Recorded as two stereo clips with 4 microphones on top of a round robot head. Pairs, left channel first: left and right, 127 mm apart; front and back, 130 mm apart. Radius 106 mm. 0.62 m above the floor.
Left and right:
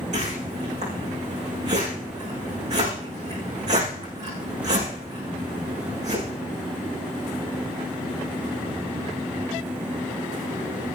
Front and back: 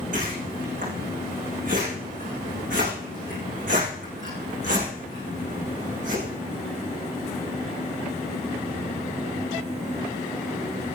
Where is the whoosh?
135° right, 8.5 m.